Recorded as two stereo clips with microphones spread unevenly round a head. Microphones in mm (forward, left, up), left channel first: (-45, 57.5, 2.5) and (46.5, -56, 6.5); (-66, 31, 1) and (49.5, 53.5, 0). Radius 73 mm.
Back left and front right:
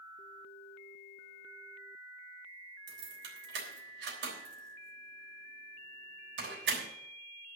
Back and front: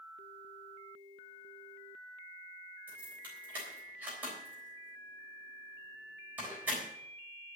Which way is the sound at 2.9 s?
70° right.